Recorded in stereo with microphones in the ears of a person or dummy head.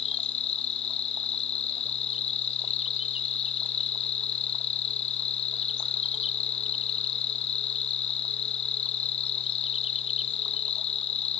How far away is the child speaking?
I don't hear a child speaking.